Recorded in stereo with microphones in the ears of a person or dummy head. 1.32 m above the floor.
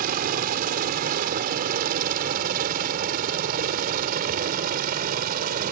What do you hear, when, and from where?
0.0 s a helicopter: 45° right (ahead or behind)